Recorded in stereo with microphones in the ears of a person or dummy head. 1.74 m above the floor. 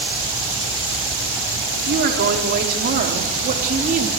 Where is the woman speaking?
60° right (ahead or behind), 5 m; by 4.1 s 40° right (ahead or behind), 3.5 m.